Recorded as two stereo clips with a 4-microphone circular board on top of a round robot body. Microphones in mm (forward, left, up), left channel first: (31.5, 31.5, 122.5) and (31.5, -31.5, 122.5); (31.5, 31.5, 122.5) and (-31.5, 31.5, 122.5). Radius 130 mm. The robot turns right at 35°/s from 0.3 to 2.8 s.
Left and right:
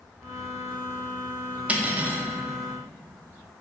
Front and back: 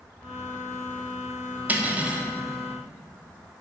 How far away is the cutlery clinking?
About 0.7 m.